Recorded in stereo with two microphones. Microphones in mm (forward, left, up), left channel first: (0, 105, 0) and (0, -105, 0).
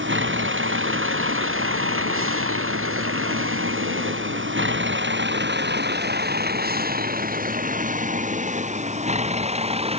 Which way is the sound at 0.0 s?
65° right (ahead or behind).